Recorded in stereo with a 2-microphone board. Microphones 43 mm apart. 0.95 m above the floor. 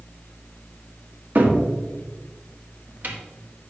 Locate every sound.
1.4 s a cupboard door: 50° right (ahead or behind), 1.4 m